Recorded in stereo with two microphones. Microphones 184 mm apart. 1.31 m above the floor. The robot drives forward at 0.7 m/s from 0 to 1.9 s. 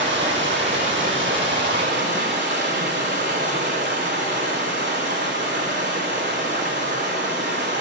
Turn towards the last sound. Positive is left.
turn(degrees=-75)  # may be behind; listen again after turning